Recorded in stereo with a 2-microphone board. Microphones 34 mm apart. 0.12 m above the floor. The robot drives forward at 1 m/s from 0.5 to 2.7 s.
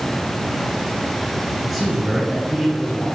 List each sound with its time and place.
1.6 s a man speaking: 5° right (ahead or behind), 1.4 m; by 3.0 s centre (ahead or behind), 2 m